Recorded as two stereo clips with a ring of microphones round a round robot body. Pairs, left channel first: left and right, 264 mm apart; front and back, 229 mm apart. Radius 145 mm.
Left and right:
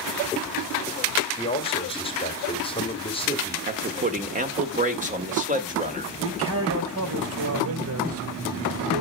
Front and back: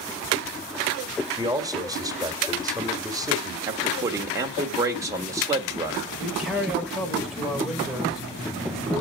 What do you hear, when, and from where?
1.3 s a man speaking: 130° left, 1.5 m
3.7 s a man speaking: 115° right, 1.5 m
6.2 s a man speaking: 95° right, 2 m